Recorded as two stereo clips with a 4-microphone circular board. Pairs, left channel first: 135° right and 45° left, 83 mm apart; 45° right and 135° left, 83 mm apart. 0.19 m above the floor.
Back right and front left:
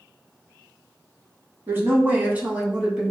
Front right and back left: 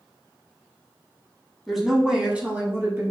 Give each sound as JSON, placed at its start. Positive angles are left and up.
{"t": 1.7, "sound": "a woman speaking", "azimuth_deg": 45, "distance_m": 1.2}